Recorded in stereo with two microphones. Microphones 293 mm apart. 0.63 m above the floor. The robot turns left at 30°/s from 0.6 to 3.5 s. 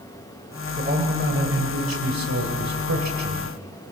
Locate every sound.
0.8 s a man speaking: 30° right, 2.5 m; by 3.5 s 115° right, 2.5 m